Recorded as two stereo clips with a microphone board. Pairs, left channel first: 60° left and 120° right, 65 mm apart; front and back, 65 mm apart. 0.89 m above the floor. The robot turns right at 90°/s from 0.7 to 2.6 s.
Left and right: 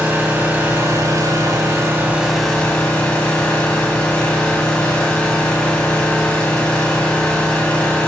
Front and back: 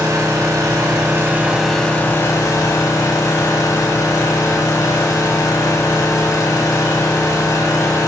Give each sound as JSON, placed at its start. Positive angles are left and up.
{"t": 0.0, "sound": "an engine running", "azimuth_deg": 180, "distance_m": 1.6}